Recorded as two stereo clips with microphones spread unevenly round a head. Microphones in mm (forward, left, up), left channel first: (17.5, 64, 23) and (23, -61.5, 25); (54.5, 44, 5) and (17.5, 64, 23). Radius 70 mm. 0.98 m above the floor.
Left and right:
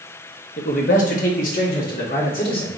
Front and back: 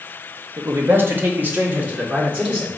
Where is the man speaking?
120° left, 0.8 m; by 2.7 s 95° left, 2 m.